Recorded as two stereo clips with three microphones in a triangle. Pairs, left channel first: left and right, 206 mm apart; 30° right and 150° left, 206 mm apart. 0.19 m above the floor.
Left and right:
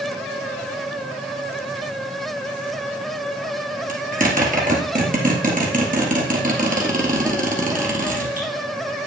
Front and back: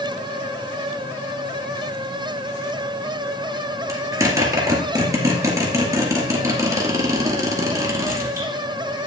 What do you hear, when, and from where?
3.9 s a zipper: 135° right, 2 m